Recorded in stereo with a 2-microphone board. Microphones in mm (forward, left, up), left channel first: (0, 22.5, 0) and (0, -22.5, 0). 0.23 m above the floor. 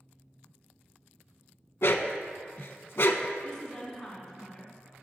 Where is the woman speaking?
10° left (ahead or behind), 2.5 m.